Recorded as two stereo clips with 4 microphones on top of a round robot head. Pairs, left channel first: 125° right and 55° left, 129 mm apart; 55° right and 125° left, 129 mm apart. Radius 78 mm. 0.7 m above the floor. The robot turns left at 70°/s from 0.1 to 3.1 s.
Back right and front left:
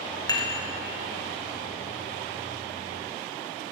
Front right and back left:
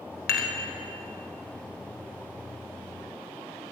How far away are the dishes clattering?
About 1.7 m.